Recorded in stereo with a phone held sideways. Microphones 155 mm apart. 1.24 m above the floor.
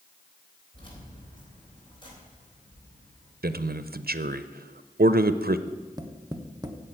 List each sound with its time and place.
0.7 s keys jangling: 30° left (ahead or behind), 3.5 m
3.4 s a man speaking: 85° right, 0.5 m
5.7 s tapping: 25° right (ahead or behind), 0.9 m